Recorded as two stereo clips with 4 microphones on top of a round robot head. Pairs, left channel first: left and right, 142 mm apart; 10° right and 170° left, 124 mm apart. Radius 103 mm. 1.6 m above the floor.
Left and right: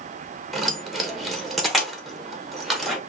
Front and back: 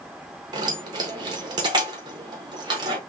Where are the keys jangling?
Straight behind, 0.7 m.